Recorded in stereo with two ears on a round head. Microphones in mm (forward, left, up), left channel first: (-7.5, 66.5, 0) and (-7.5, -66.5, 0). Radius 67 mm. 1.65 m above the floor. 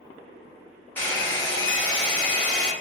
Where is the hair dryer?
10° left (ahead or behind), 1.4 m.